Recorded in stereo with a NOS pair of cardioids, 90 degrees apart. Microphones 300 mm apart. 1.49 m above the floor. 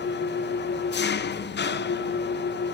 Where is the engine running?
35° left, 0.8 m.